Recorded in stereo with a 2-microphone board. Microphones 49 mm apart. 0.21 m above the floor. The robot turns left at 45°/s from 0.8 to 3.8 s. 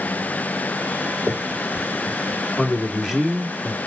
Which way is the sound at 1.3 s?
Centre (ahead or behind).